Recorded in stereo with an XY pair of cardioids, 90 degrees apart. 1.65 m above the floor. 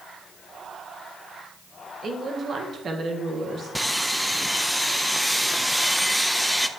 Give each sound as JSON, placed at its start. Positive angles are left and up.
{"t": 2.0, "sound": "a woman speaking", "azimuth_deg": -50, "distance_m": 1.5}
{"t": 3.8, "sound": "sawing", "azimuth_deg": 0, "distance_m": 0.7}